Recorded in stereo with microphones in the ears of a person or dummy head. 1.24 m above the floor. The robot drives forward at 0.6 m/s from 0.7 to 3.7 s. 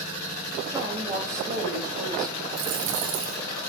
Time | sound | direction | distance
0.7 | a woman speaking | 15° right (ahead or behind) | 5.5 m
2.6 | a dropped coin | 80° right | 4 m